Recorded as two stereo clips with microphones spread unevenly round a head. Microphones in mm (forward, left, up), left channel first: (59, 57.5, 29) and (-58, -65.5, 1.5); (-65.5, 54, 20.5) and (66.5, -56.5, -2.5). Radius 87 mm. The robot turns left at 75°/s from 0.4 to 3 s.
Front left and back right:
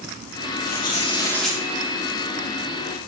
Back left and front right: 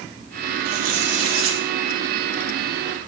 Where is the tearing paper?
20° left, 3 m; by 1.6 s 55° right, 3 m.